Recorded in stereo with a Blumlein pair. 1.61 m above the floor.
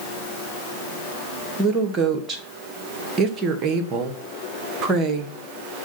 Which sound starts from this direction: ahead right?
A woman speaking, at 1.6 s.